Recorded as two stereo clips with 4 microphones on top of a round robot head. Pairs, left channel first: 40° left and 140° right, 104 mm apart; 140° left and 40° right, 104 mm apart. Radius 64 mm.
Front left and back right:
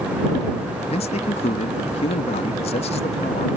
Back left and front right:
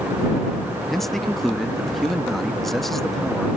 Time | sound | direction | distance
0.9 | a man speaking | 55° left | ?